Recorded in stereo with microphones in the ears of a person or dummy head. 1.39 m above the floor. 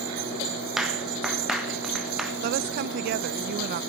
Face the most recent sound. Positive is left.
turn(degrees=-55)  # may be behind; listen again after turning